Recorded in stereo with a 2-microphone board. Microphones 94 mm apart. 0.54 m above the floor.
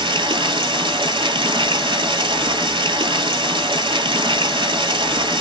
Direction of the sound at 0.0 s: 65° right (ahead or behind).